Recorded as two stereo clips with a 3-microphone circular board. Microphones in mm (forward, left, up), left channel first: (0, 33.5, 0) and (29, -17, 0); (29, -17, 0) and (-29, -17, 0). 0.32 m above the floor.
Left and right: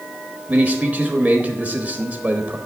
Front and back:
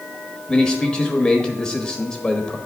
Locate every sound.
0.5 s a man speaking: 60° right, 1.0 m